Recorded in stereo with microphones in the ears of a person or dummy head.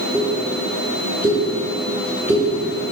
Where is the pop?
15° right (ahead or behind), 3.5 m.